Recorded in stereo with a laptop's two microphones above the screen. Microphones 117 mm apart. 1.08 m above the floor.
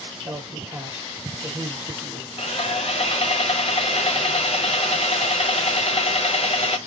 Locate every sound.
0.2 s a man speaking: 10° right (ahead or behind), 1.5 m
2.4 s sawing: 60° left (ahead or behind), 0.5 m